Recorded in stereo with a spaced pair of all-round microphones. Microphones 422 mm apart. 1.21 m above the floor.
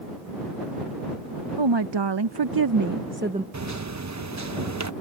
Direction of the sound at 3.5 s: 40° right (ahead or behind).